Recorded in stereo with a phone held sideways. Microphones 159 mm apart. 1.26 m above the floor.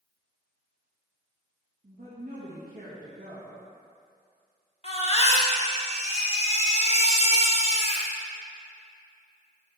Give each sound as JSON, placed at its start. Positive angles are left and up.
{"t": 1.8, "sound": "a woman speaking", "side_deg": -70, "distance_m": 1.7}
{"t": 4.8, "sound": "a baby crying", "side_deg": 40, "distance_m": 1.2}